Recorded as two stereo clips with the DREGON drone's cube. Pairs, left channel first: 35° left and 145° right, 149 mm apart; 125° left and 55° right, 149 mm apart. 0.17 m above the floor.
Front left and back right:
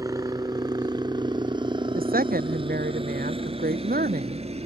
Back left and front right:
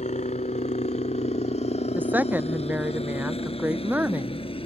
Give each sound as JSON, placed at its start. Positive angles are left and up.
{"t": 0.0, "sound": "a helicopter", "azimuth_deg": 150}
{"t": 1.9, "sound": "a woman speaking", "azimuth_deg": -135}